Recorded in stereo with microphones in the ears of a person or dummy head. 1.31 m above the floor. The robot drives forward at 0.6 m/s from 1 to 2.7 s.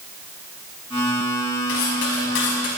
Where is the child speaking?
No child speaking in this recording.